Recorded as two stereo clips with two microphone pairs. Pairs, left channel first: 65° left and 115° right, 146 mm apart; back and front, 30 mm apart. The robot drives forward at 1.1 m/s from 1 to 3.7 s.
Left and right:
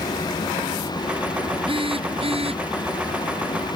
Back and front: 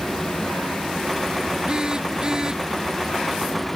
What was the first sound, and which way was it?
A phone buzzing, 65° right.